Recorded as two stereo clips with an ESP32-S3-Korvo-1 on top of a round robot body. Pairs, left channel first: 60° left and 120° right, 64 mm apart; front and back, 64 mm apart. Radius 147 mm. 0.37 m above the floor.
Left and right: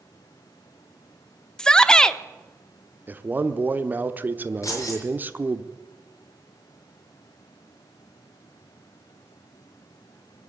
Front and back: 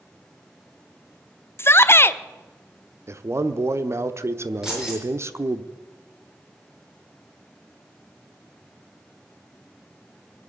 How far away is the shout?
About 1.0 m.